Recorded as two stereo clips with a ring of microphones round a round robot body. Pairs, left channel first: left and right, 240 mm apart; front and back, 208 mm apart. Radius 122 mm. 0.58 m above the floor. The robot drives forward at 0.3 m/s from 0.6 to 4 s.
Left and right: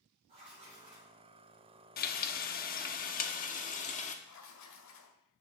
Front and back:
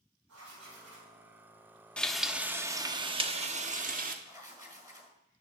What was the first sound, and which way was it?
Writing, 155° right.